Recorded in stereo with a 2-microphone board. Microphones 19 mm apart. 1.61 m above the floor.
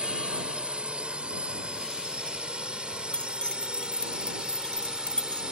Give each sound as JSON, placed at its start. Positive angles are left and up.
{"t": 0.0, "sound": "a drone", "side_deg": -75}
{"t": 3.1, "sound": "keys jangling", "side_deg": 65}